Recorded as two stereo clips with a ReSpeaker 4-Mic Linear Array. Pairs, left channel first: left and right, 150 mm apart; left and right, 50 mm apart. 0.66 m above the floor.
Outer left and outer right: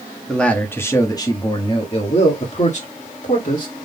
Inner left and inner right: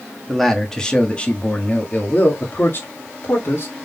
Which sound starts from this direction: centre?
A man speaking, at 0.3 s.